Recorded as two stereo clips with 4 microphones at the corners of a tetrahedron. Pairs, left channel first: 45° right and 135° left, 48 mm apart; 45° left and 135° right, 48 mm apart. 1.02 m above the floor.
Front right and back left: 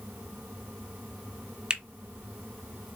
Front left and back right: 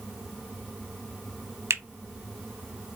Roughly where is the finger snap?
Behind right.